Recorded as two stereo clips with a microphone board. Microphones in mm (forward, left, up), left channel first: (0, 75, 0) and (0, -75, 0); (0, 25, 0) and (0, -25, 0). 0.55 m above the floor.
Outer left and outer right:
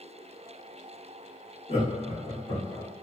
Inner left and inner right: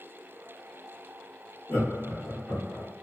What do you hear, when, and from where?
1.7 s laughter: 40° left (ahead or behind), 1.1 m